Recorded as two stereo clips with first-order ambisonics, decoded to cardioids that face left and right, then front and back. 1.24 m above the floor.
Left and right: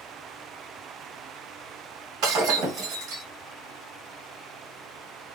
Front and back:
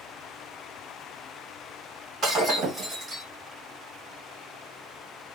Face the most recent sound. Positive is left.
turn(degrees=-115)